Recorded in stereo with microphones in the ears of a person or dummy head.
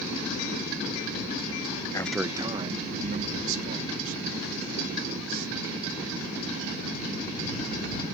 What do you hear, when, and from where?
1.9 s a man speaking: 25° left (ahead or behind); by 5.5 s 50° right (ahead or behind)